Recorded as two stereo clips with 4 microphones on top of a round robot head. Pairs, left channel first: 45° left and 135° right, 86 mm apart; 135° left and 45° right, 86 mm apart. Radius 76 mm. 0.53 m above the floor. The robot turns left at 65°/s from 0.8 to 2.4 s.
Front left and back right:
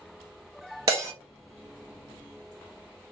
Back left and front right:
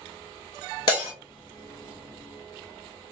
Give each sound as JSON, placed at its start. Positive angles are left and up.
{"t": 0.9, "sound": "breaking glass", "azimuth_deg": 180, "distance_m": 1.6}